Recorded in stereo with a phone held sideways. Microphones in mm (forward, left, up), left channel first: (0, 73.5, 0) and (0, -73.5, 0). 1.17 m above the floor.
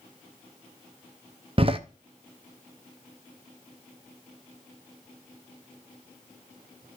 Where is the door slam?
40° right (ahead or behind), 0.7 m.